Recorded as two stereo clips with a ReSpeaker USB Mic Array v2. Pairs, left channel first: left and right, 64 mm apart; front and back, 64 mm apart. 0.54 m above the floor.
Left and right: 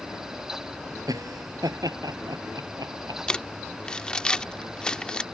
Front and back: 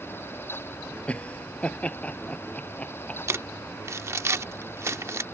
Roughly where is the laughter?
Right.